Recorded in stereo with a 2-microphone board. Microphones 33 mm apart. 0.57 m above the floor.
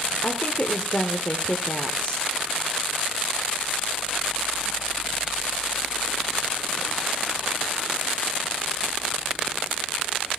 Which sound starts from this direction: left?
A woman speaking, at 0.2 s.